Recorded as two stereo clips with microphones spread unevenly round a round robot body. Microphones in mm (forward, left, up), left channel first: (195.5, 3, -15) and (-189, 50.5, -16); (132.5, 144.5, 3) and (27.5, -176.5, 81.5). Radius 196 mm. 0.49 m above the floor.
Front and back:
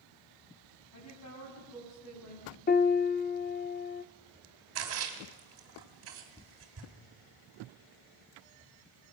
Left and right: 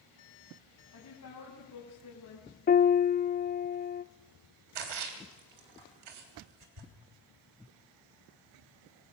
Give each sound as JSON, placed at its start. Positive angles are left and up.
{"t": 0.9, "sound": "a woman speaking", "azimuth_deg": 40, "distance_m": 4.5}
{"t": 2.7, "sound": "a piano", "azimuth_deg": 50, "distance_m": 0.6}
{"t": 4.8, "sound": "a splash", "azimuth_deg": -135, "distance_m": 3.5}